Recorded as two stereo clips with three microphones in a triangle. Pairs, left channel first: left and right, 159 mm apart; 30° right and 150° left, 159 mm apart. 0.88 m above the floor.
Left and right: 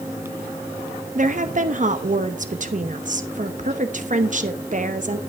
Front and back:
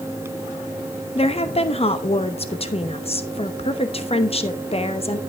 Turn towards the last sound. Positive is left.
turn(degrees=-75)